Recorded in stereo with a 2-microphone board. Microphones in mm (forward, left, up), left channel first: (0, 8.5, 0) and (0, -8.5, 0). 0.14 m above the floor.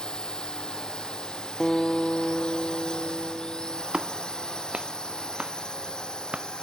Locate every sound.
0.0 s a drone: 60° left (ahead or behind)
1.6 s a guitar: 15° left (ahead or behind)
3.9 s a clap: 80° right